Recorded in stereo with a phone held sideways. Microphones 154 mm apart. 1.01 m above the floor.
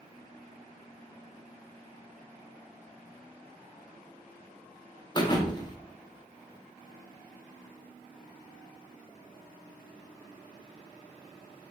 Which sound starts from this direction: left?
A thud, at 5.2 s.